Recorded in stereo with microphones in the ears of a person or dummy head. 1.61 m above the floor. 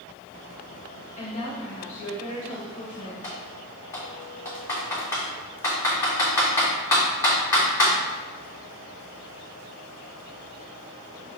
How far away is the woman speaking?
About 1.8 m.